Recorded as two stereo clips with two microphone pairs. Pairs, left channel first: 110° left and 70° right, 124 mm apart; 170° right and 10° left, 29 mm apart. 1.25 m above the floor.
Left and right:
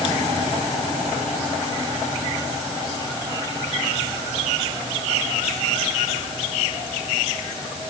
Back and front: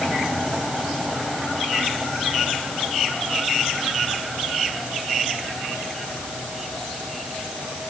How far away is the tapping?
No tapping in this recording.